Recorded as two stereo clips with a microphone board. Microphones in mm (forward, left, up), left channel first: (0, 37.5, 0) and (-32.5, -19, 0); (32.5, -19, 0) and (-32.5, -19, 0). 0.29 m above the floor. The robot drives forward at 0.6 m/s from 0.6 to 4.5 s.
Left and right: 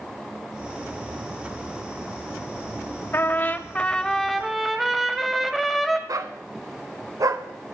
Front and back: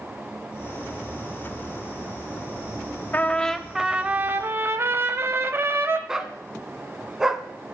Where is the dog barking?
100° right, 0.9 m.